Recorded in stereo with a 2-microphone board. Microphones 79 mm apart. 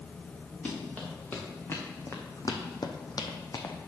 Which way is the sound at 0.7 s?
15° left (ahead or behind).